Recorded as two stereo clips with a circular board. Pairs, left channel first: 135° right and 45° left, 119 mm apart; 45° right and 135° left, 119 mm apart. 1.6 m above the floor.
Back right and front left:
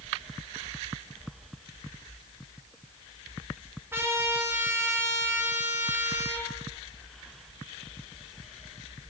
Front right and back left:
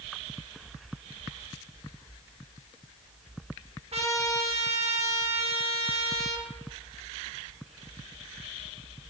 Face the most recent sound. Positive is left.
turn(degrees=110)